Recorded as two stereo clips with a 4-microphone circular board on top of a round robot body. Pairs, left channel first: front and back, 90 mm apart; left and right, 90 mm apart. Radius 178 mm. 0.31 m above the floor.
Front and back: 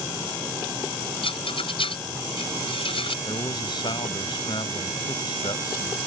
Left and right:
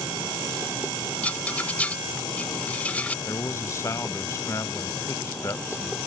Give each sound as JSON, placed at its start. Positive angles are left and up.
{"t": 1.2, "sound": "a rattle", "azimuth_deg": 15}
{"t": 3.2, "sound": "a man speaking", "azimuth_deg": 35}